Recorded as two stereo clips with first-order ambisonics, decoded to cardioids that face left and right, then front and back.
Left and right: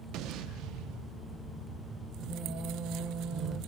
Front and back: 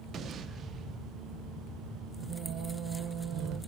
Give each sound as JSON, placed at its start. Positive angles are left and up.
{"t": 0.1, "sound": "an explosion", "azimuth_deg": -120, "distance_m": 0.5}
{"t": 2.2, "sound": "singing", "azimuth_deg": -140, "distance_m": 0.8}